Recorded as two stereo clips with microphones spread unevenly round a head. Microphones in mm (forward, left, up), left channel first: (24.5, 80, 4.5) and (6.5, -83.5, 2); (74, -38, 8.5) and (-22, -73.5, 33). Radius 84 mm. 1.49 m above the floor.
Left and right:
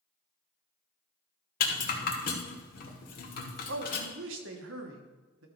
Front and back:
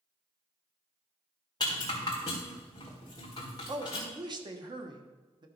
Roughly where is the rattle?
Left.